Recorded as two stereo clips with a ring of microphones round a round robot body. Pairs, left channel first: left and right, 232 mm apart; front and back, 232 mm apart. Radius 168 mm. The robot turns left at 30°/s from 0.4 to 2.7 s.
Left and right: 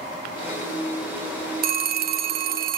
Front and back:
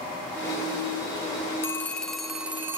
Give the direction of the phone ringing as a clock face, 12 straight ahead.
2 o'clock.